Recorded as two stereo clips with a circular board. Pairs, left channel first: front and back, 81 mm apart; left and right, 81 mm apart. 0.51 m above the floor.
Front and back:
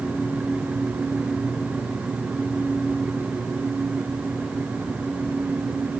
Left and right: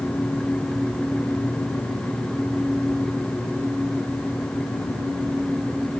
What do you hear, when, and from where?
Only background noise.